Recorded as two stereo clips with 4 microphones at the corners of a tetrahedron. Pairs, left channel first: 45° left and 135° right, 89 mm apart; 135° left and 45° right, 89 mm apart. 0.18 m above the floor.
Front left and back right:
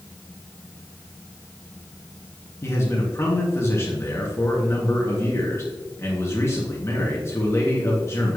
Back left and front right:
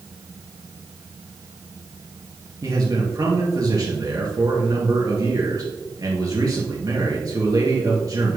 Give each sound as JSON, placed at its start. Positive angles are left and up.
{"t": 2.6, "sound": "a man speaking", "azimuth_deg": -10, "distance_m": 2.5}